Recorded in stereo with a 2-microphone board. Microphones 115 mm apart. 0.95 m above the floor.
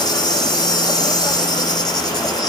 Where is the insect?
35° left (ahead or behind), 1.5 m.